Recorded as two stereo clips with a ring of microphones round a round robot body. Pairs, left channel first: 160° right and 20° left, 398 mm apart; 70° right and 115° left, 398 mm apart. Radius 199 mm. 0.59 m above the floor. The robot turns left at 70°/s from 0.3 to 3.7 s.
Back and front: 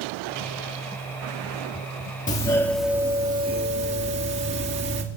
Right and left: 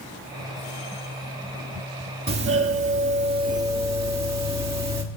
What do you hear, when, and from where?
2.3 s a doorbell: 150° left, 1.6 m; by 5.0 s 50° left, 1.6 m